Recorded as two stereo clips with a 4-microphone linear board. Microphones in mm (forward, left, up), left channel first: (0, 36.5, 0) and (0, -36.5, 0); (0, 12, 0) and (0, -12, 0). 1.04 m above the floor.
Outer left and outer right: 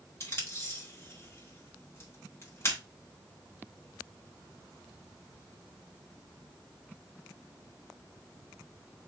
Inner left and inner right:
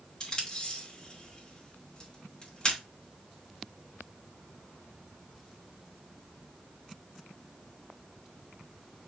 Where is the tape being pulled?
40° left (ahead or behind), 2 m.